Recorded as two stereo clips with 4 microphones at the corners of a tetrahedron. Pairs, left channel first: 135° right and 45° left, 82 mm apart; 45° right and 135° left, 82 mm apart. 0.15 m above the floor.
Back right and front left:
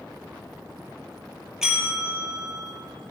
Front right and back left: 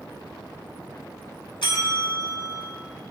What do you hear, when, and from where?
1.6 s a bell: 40° right, 3 m